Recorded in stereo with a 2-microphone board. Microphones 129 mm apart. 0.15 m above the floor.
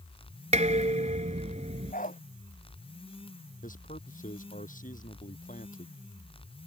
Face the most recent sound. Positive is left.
turn(degrees=75)  # may be behind; listen again after turning